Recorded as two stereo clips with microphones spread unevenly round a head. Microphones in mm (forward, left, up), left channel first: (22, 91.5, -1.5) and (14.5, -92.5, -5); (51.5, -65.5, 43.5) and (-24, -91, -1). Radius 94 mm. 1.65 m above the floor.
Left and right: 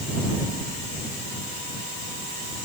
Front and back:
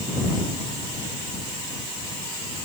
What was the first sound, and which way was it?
Only background noise.